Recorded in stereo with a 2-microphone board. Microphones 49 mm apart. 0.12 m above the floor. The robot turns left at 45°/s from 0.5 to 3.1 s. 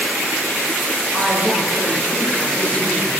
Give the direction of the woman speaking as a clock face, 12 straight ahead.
5 o'clock.